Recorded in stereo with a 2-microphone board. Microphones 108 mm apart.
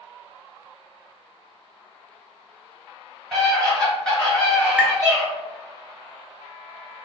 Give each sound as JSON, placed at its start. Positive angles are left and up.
{"t": 3.3, "sound": "a scream", "side_deg": 5, "distance_m": 1.9}
{"t": 4.8, "sound": "tapping", "side_deg": -10, "distance_m": 0.5}